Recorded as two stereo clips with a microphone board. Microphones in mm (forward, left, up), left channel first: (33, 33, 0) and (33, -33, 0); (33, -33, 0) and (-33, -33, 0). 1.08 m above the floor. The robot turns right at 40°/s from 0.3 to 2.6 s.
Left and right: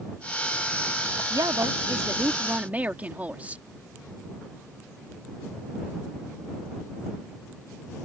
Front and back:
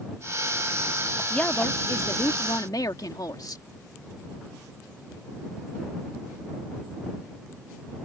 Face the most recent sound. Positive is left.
turn(degrees=-20)